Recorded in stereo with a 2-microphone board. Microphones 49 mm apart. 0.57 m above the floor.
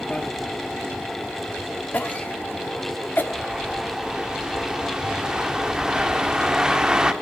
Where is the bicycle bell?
20° left (ahead or behind), 2.5 m.